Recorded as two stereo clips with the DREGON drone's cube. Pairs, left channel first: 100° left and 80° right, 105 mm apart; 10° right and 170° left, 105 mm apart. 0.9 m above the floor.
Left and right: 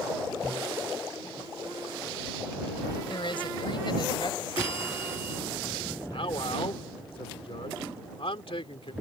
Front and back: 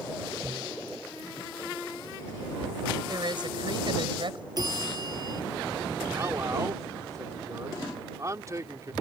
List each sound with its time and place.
3.1 s a woman speaking: 130° left; by 4.5 s 140° left
4.6 s a bell: 125° left
6.1 s a man speaking: 115° left